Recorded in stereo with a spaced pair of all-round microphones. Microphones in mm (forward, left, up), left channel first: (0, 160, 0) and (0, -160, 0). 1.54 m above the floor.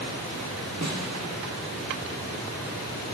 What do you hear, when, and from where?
0.8 s a snare drum: 50° right (ahead or behind), 1.2 m